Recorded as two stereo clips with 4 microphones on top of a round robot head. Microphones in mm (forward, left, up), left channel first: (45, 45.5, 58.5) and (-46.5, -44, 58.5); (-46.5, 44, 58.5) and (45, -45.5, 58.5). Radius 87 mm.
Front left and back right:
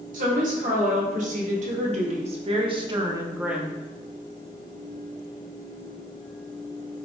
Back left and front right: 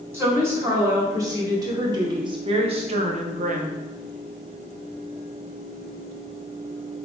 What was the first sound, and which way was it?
A woman speaking, 115° right.